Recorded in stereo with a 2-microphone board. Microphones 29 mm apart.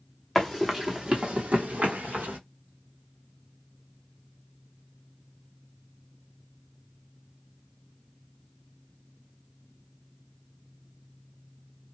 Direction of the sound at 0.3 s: Centre (ahead or behind).